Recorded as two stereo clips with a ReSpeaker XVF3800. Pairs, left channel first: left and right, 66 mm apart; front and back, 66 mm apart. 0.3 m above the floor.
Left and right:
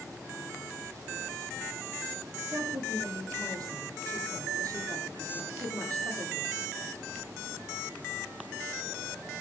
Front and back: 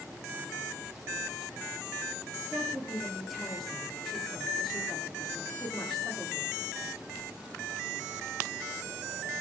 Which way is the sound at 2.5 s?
85° right.